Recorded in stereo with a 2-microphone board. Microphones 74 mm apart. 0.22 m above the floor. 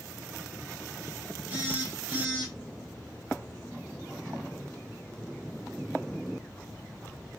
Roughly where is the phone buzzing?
Centre.